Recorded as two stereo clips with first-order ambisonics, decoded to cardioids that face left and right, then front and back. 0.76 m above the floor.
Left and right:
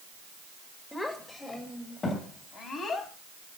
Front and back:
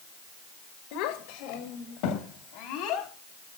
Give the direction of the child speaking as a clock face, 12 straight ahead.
12 o'clock.